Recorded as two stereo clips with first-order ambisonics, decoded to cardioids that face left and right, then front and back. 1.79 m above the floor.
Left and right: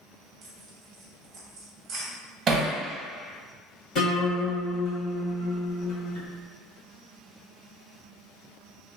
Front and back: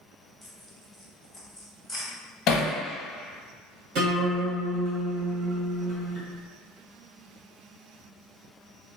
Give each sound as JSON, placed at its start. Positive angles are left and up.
{"t": 0.4, "sound": "tearing paper", "azimuth_deg": -75, "distance_m": 0.8}
{"t": 2.5, "sound": "hammering", "azimuth_deg": -35, "distance_m": 0.7}
{"t": 4.0, "sound": "a guitar", "azimuth_deg": 140, "distance_m": 1.5}